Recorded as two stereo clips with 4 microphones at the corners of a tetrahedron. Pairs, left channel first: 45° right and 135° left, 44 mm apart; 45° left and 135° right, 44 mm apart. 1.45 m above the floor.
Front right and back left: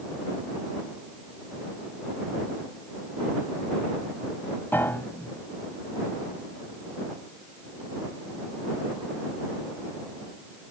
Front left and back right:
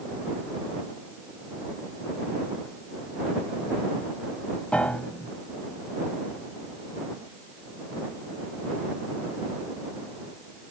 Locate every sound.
4.7 s a piano: 15° right